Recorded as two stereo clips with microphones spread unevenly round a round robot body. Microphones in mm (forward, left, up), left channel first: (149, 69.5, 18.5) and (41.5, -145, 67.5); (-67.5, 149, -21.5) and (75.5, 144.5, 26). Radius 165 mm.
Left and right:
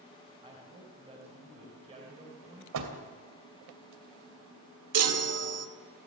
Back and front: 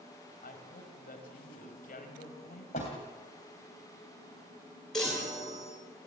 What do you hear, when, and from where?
0.4 s a woman speaking: 170° left, 4 m
2.7 s a door slam: 120° right, 2.5 m
4.9 s a chime: 100° right, 2 m